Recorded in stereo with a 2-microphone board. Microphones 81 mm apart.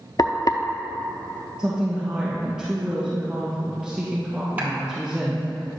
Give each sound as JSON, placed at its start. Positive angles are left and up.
{"t": 0.2, "sound": "frying", "side_deg": 50, "distance_m": 0.6}
{"t": 1.6, "sound": "a woman speaking", "side_deg": -5, "distance_m": 1.9}
{"t": 4.6, "sound": "a clap", "side_deg": -20, "distance_m": 2.5}